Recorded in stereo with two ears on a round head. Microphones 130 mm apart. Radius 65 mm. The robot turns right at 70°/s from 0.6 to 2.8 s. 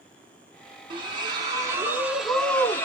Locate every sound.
0.9 s a splash: 95° right, 0.7 m; by 2.9 s 35° left, 0.7 m